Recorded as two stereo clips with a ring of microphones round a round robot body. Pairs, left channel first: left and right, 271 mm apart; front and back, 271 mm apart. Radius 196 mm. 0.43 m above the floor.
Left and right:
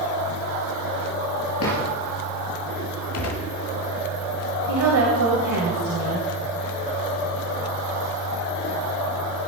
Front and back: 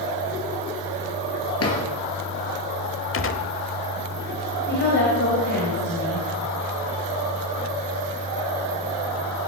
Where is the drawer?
35° left, 3 m.